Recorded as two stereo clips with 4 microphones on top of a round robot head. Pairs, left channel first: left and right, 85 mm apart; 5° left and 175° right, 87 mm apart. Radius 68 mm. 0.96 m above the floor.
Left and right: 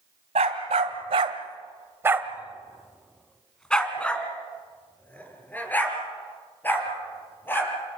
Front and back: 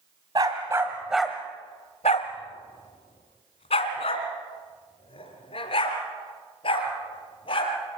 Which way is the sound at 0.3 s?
115° right.